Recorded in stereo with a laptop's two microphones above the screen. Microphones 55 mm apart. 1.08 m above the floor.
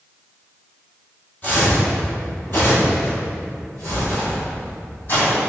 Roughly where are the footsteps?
Left.